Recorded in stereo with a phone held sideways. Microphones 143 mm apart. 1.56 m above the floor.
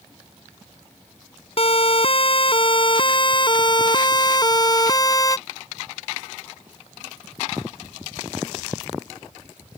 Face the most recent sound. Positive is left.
turn(degrees=25)  # may be behind; listen again after turning